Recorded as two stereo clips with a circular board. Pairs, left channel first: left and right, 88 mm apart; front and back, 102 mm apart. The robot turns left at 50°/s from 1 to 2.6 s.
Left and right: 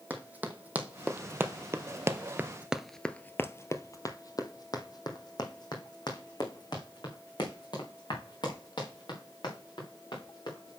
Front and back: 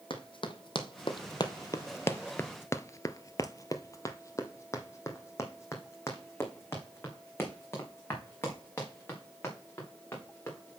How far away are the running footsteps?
About 1.5 m.